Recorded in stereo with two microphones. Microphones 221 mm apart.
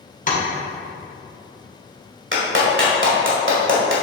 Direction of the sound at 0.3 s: 35° left (ahead or behind).